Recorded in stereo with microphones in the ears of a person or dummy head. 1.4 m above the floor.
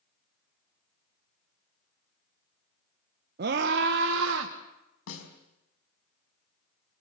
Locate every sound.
3.4 s a scream: 50° right (ahead or behind), 1.3 m; by 4.5 s 70° right (ahead or behind), 1.7 m
5.1 s a snare drum: 80° left, 5 m